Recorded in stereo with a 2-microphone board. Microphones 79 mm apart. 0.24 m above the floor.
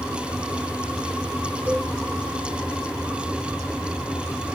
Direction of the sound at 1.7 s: 30° right (ahead or behind).